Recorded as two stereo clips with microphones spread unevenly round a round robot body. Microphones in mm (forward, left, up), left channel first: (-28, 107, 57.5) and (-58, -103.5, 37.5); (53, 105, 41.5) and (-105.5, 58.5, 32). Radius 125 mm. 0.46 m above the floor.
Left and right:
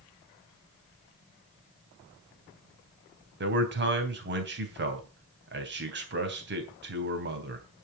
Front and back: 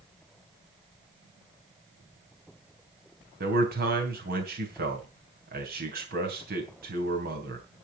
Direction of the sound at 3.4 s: 130° right.